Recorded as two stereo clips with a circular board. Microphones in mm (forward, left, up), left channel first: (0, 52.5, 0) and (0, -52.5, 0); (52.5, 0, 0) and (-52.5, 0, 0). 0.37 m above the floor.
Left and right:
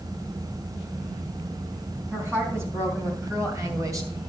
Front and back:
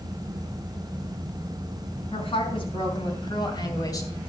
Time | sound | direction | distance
2.1 | a woman speaking | 25° right | 3.5 m